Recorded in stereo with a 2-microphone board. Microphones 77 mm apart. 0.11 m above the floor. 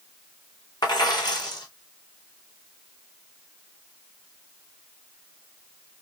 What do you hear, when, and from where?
0.8 s a dropped coin: 65° left (ahead or behind), 2.5 m